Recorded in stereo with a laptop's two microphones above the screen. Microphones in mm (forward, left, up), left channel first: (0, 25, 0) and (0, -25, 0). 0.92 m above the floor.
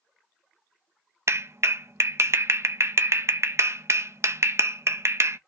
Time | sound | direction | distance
1.3 | a clap | 65° right (ahead or behind) | 0.5 m